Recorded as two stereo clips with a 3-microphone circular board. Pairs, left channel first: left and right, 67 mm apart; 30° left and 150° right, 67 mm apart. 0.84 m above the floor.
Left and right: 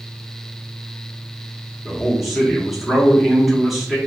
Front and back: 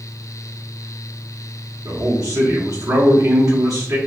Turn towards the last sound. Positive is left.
turn(degrees=180)